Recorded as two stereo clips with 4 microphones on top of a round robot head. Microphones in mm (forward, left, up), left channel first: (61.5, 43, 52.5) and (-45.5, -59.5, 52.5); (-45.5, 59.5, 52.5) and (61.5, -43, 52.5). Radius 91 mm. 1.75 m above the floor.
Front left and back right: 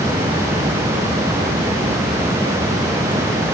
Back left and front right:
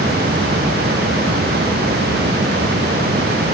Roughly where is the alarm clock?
No alarm clock in this recording.